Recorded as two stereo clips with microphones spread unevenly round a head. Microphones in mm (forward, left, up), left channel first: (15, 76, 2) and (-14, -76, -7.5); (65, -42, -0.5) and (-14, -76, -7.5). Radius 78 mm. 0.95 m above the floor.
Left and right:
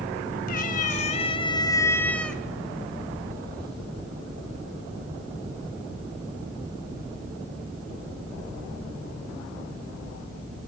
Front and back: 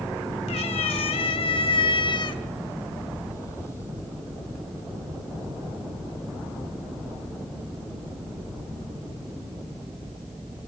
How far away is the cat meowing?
About 2.5 m.